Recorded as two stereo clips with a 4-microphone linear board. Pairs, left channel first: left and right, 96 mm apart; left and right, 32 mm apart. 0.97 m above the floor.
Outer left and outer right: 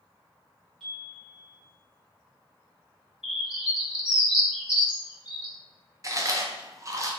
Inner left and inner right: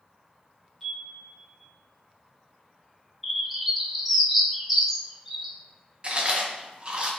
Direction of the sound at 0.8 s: Centre (ahead or behind).